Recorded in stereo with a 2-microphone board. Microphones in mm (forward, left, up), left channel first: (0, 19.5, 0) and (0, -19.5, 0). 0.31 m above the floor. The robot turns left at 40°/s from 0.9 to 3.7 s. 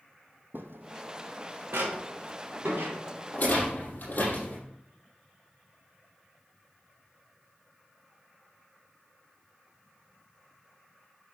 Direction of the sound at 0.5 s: 70° right (ahead or behind).